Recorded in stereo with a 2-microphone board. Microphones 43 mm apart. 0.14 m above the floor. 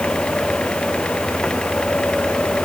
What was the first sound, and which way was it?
Only background noise.